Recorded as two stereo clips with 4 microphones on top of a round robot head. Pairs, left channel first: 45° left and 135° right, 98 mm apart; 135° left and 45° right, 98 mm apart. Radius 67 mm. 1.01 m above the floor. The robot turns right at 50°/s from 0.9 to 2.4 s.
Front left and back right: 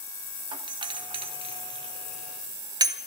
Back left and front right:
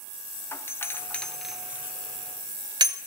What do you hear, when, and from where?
0.5 s a doorbell: 165° right, 1.3 m; by 3.0 s 90° right, 1.3 m